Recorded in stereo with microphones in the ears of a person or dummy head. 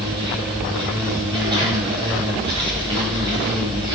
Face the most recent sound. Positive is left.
turn(degrees=-25)  # may be behind; listen again after turning